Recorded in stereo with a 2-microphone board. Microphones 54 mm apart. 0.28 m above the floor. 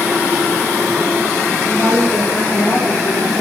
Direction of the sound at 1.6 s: 40° left (ahead or behind).